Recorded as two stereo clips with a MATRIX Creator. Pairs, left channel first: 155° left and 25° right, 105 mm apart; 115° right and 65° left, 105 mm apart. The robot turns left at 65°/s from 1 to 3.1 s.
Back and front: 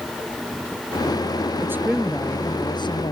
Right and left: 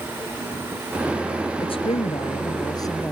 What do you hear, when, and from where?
1.6 s a woman speaking: 85° right; by 3.1 s straight behind